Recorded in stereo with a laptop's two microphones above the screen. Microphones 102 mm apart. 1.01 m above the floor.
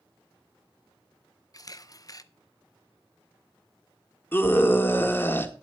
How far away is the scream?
About 1.8 m.